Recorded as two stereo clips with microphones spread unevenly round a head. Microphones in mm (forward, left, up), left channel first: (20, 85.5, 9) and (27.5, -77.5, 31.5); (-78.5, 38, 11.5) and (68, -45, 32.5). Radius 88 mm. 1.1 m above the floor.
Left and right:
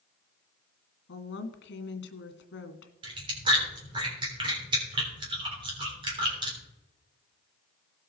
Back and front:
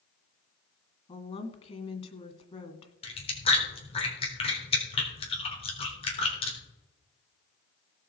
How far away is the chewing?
About 3.5 m.